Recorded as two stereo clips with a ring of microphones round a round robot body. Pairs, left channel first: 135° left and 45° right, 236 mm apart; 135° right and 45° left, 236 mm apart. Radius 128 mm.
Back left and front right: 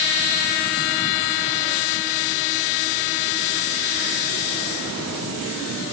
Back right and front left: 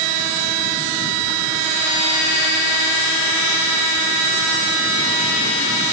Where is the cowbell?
I don't hear a cowbell.